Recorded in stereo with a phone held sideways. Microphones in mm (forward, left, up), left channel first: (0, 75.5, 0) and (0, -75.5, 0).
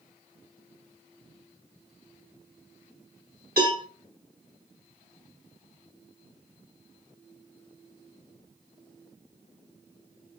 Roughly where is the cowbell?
Right.